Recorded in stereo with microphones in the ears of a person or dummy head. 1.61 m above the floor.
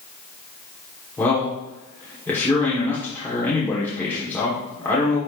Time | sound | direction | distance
1.2 | a man speaking | 15° left (ahead or behind) | 1.3 m